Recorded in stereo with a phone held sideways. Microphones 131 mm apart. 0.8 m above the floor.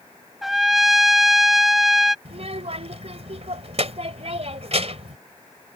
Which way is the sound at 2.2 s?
60° right (ahead or behind).